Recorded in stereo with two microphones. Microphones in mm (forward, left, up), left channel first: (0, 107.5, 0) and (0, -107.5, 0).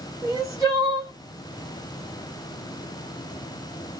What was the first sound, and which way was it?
Crying, 15° right (ahead or behind).